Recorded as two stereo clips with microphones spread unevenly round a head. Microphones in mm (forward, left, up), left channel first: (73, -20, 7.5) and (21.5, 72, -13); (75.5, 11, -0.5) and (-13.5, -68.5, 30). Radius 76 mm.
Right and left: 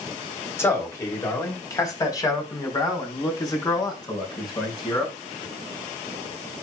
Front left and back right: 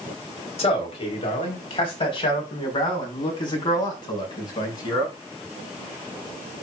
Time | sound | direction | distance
0.6 | a man speaking | 5° left | 3.5 m